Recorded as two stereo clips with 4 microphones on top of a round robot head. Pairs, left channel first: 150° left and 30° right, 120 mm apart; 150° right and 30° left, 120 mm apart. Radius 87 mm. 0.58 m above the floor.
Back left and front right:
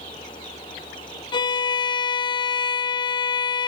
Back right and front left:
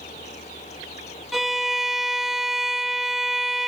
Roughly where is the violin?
Behind left.